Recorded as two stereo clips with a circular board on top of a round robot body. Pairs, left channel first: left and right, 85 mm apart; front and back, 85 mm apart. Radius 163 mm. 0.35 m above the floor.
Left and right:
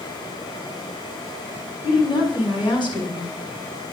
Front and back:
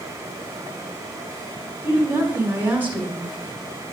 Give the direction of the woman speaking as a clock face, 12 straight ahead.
8 o'clock.